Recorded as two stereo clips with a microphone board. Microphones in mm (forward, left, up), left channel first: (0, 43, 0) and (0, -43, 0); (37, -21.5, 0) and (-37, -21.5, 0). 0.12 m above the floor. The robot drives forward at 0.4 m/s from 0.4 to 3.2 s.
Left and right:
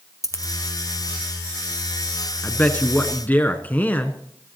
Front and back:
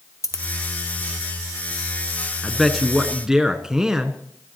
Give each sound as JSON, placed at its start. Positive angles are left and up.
{"t": 0.2, "sound": "a dropped coin", "azimuth_deg": 40, "distance_m": 1.5}
{"t": 2.4, "sound": "a man speaking", "azimuth_deg": 80, "distance_m": 1.3}